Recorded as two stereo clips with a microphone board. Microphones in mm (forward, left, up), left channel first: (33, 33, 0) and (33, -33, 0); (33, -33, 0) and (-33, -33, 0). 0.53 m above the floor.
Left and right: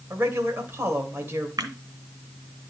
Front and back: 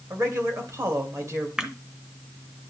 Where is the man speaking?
145° right, 2 m.